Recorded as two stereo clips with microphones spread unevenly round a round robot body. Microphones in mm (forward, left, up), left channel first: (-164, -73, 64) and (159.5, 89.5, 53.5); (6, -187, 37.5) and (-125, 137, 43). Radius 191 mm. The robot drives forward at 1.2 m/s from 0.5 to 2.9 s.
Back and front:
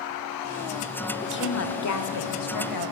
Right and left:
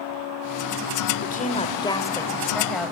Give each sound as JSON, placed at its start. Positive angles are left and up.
{"t": 1.2, "sound": "a woman speaking", "azimuth_deg": -105, "distance_m": 1.7}